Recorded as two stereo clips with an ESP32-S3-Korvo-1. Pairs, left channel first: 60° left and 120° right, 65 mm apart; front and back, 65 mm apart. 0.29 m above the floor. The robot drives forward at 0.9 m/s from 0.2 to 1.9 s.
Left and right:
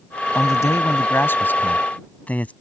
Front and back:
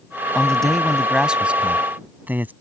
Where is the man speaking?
75° left; by 2.5 s 125° left.